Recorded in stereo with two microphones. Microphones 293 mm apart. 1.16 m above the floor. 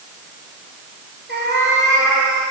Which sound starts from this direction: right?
A cat meowing, at 1.3 s.